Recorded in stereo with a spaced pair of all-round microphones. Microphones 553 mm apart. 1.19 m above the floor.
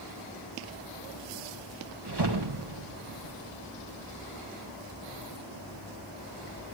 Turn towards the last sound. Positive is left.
turn(degrees=-50)  # may be behind; listen again after turning